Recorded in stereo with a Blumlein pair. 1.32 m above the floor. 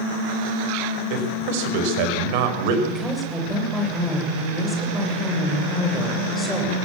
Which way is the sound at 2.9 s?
5° left.